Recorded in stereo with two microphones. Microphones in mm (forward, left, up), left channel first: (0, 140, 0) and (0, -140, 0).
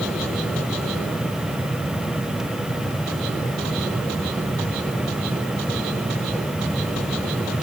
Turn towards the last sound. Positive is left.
No sound to turn to.